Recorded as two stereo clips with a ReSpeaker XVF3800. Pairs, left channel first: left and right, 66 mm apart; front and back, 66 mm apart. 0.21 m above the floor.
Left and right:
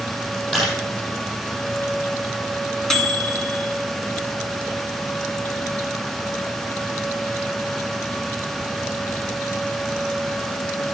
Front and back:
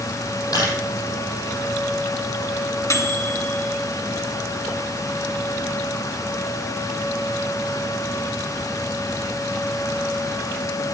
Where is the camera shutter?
5° left, 6 m.